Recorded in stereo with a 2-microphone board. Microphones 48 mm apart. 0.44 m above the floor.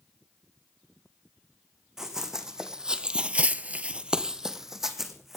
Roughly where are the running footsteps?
Centre.